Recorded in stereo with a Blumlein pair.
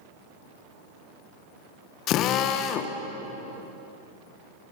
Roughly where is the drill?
Ahead left.